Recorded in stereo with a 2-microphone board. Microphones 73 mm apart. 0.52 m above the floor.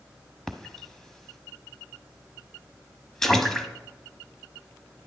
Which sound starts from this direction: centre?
A splash, at 0.5 s.